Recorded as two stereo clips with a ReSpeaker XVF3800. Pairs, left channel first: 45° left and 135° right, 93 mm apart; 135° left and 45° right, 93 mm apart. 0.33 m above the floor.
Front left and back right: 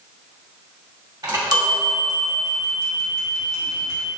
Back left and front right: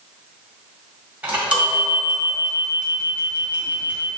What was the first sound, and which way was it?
A chime, 115° right.